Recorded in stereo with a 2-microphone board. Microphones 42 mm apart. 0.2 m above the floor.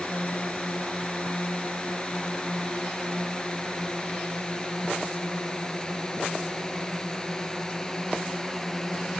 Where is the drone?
35° left (ahead or behind); by 9.2 s 15° left (ahead or behind).